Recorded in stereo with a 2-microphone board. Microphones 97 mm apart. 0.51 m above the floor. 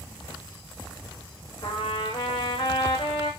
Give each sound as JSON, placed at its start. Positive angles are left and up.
{"t": 1.6, "sound": "a trumpet", "side_deg": 65, "distance_m": 7.5}